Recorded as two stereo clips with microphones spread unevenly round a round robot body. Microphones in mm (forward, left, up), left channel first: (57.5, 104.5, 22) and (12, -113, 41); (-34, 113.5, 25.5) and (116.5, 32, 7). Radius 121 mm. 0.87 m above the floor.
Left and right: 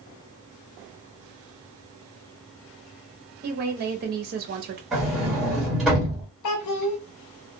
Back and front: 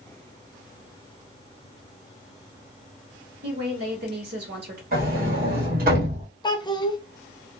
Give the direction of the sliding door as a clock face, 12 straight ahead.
12 o'clock.